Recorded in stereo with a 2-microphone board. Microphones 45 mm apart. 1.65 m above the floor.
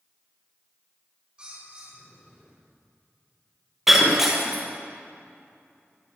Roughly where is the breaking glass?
Centre.